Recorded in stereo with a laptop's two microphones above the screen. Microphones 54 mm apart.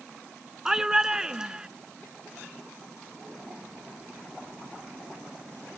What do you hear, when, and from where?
0.7 s a shout: 10° right (ahead or behind); by 1.7 s 15° right (ahead or behind)